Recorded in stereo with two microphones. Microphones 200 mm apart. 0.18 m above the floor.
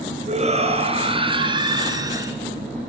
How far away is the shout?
About 3.5 m.